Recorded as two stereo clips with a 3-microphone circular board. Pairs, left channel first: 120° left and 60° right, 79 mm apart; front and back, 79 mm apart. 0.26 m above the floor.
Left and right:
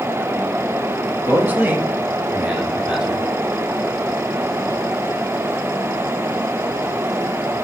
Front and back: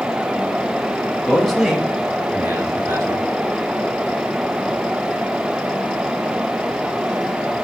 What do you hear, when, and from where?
1.2 s a man speaking: 65° right, 1.1 m; by 3.3 s 140° right, 1.7 m